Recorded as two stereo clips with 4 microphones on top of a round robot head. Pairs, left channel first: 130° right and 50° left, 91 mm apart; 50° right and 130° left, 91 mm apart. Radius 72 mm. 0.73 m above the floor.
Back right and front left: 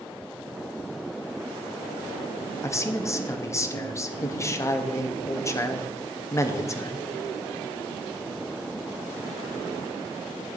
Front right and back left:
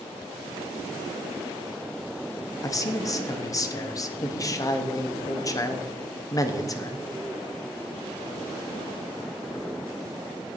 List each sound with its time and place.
2.6 s a man speaking: 85° right, 0.9 m